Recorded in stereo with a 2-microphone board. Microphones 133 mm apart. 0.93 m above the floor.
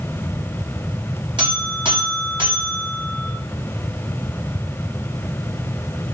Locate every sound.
1.4 s a buzzer: 35° right (ahead or behind), 1.3 m